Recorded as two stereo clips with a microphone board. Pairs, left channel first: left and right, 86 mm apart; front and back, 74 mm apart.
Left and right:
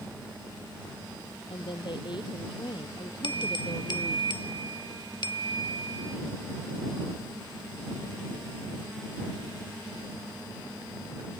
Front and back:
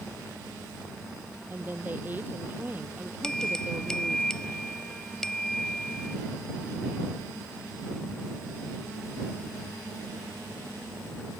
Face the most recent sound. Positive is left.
turn(degrees=80)